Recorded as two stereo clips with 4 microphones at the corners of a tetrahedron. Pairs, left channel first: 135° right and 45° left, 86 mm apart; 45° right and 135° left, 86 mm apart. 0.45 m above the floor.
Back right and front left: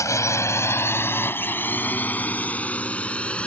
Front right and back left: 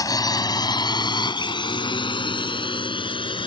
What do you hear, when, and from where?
0.0 s a drone: 85° right; by 3.5 s 60° right